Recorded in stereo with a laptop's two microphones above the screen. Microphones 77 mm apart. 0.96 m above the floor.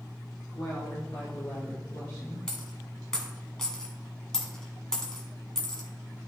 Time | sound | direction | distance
0.5 | a woman speaking | 55° left (ahead or behind) | 1.7 m
2.5 | a dropped coin | 5° left (ahead or behind) | 1.4 m